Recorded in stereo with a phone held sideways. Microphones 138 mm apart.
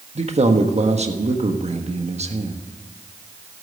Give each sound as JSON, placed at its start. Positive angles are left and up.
{"t": 0.1, "sound": "a man speaking", "side_deg": -50, "distance_m": 1.4}